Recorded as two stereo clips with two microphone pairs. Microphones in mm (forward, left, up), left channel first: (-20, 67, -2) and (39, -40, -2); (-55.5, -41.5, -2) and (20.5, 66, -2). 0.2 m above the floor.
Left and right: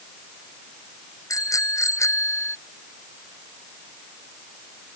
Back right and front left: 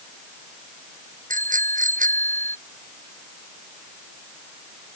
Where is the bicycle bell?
55° left; by 2.6 s 50° left.